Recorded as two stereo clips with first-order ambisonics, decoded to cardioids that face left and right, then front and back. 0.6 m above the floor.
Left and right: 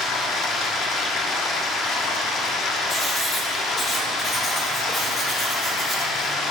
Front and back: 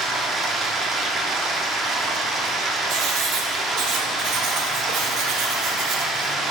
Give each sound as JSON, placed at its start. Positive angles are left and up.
{"t": 0.0, "sound": "running water", "azimuth_deg": 125, "distance_m": 1.1}
{"t": 2.9, "sound": "writing", "azimuth_deg": 165, "distance_m": 2.5}